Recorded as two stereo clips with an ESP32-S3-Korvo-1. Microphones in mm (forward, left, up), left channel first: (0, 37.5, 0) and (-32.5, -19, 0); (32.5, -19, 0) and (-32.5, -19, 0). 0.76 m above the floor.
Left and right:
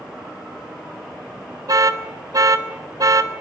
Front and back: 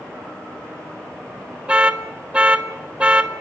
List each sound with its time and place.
1.7 s an alarm: 105° right, 2 m